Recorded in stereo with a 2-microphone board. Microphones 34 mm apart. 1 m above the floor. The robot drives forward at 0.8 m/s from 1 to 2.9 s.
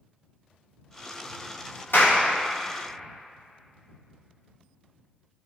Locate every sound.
1.9 s a clap: 80° left, 2.5 m